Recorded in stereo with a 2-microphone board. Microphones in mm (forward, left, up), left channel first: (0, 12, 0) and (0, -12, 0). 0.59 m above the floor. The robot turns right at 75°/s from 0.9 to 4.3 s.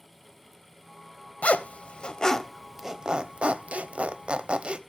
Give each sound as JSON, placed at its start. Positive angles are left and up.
{"t": 1.4, "sound": "a zipper", "side_deg": 80, "distance_m": 0.8}